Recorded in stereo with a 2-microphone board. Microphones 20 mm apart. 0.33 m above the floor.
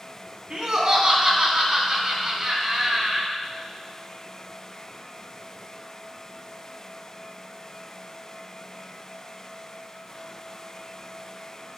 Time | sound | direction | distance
0.5 | laughter | 40° right (ahead or behind) | 3.5 m